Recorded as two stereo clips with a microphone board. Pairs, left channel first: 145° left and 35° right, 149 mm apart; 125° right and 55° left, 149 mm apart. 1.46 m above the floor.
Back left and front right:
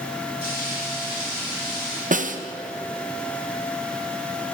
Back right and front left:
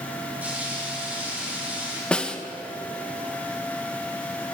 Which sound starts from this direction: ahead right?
A snare drum, at 2.1 s.